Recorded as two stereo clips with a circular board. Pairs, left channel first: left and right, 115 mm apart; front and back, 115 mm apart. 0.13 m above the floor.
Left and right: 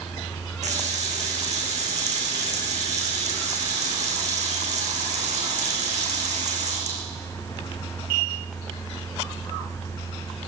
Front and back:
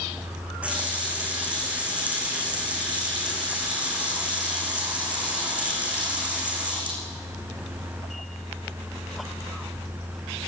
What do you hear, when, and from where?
0.6 s a running tap: 100° right, 5 m